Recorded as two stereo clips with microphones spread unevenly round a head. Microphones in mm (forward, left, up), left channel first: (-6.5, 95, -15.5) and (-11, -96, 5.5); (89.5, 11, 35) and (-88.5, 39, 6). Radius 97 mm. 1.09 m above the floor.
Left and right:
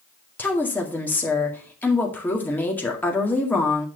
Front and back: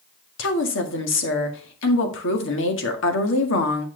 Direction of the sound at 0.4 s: 5° left.